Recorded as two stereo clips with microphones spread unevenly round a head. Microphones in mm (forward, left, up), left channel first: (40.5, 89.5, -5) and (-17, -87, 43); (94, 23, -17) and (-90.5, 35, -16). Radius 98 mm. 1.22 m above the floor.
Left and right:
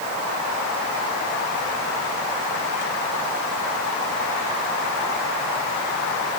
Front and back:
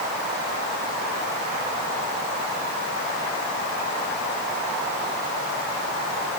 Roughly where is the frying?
I don't hear frying.